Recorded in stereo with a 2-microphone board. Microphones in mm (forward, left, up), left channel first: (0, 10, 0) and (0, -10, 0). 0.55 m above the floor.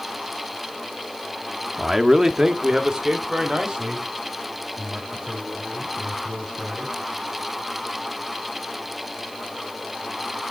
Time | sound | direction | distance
1.8 | a man speaking | 10° right (ahead or behind) | 0.8 m